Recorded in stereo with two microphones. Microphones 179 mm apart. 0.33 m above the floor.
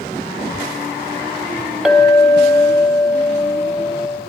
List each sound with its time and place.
1.9 s a clink: centre (ahead or behind), 1.0 m